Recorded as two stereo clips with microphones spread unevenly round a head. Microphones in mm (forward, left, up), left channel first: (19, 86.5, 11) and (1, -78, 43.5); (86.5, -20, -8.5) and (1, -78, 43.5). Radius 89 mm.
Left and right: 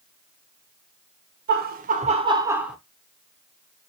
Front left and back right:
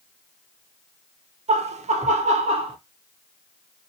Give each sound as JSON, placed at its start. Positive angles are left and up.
{"t": 1.5, "sound": "laughter", "azimuth_deg": -110, "distance_m": 0.8}